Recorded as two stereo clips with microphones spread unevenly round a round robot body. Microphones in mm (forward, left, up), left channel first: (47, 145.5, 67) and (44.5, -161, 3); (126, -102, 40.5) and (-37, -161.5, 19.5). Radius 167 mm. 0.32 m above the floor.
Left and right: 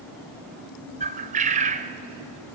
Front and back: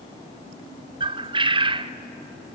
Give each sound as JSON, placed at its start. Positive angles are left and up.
{"t": 1.0, "sound": "a bird", "azimuth_deg": -125, "distance_m": 0.5}